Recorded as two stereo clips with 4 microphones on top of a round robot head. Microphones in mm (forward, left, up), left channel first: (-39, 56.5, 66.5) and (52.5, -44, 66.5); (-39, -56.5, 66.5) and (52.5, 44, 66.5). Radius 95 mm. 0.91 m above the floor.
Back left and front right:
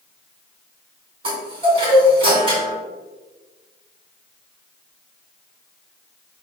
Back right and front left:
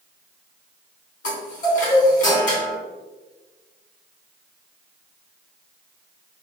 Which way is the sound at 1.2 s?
105° right.